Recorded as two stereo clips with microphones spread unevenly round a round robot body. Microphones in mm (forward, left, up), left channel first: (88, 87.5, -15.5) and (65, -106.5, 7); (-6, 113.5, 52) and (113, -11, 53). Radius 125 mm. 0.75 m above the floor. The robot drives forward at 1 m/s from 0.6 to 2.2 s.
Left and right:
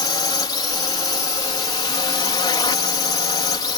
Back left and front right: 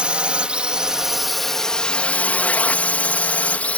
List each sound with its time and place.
0.0 s a drone: 35° left; by 3.8 s 60° left